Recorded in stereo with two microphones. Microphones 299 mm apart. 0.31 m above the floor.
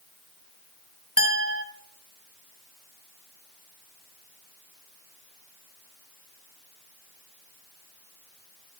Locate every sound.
1.2 s a clink: 45° left (ahead or behind), 1.2 m